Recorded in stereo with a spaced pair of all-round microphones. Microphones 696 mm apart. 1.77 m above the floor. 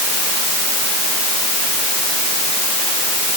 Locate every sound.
Only background noise.